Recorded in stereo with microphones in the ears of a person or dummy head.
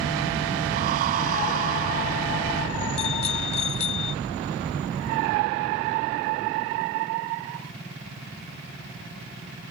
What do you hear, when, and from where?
0.7 s breathing: 45° right (ahead or behind)
3.0 s a bicycle bell: 35° left (ahead or behind)